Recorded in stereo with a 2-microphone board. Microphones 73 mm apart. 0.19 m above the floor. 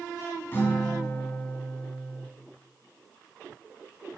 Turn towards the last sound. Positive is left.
turn(degrees=30)  # may be behind; listen again after turning